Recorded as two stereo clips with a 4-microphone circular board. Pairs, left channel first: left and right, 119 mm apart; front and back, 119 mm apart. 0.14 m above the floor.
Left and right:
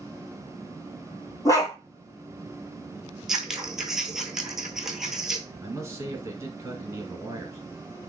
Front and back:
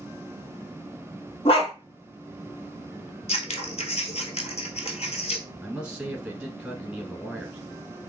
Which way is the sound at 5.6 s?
110° right.